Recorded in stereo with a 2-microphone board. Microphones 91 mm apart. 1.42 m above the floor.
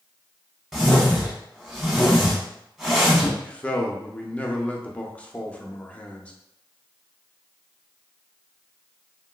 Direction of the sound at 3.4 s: 15° left (ahead or behind).